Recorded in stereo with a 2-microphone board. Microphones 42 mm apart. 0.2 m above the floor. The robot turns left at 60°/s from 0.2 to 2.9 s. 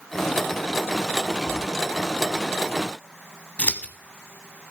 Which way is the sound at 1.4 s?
60° left (ahead or behind).